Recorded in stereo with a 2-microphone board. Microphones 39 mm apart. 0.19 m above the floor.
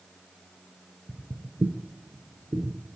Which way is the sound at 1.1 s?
10° right (ahead or behind).